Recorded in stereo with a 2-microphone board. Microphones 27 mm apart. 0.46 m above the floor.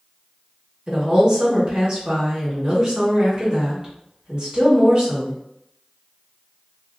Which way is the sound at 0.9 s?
30° right (ahead or behind).